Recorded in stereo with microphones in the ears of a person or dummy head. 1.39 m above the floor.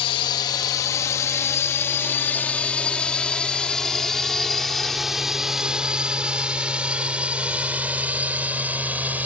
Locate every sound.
0.0 s a drone: 30° left (ahead or behind); by 9.3 s 10° right (ahead or behind)